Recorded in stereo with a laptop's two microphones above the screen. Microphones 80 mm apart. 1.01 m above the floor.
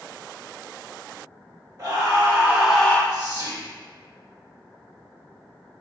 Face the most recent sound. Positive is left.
turn(degrees=-55)  # may be behind; listen again after turning